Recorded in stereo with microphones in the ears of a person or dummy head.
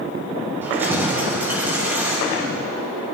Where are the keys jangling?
10° right (ahead or behind), 3.5 m.